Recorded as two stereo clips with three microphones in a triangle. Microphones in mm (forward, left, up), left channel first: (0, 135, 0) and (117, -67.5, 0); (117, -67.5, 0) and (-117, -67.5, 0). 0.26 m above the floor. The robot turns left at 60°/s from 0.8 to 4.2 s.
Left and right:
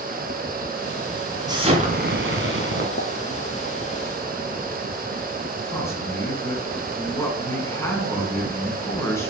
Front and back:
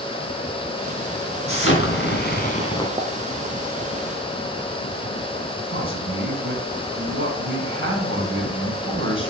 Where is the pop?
120° left, 0.8 m; by 3.1 s 110° left, 0.8 m.